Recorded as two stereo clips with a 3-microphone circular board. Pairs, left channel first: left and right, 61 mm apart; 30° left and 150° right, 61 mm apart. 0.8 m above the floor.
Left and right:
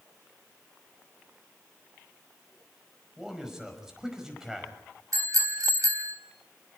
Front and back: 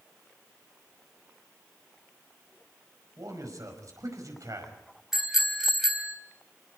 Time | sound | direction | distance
3.2 | a man speaking | 175° right | 5 m
5.1 | a bicycle bell | 70° right | 3 m